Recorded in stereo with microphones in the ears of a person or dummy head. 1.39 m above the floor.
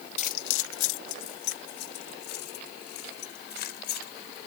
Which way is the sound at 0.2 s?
35° left (ahead or behind).